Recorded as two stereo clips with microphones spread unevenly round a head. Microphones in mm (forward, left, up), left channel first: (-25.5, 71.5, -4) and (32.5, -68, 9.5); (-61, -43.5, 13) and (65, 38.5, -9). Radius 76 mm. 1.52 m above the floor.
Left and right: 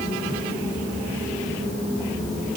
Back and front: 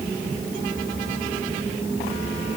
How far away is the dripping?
No dripping in this recording.